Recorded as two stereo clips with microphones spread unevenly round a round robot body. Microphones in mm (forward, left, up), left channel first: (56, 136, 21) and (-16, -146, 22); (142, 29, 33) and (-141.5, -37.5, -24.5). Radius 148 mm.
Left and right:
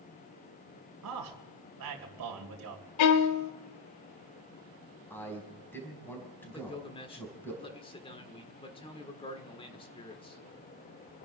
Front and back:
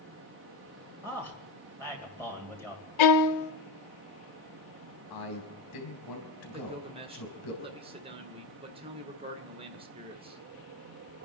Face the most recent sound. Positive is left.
turn(degrees=140)